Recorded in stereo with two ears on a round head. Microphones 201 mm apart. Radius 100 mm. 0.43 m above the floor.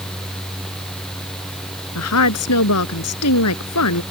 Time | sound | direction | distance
1.9 | a woman speaking | 80° left | ?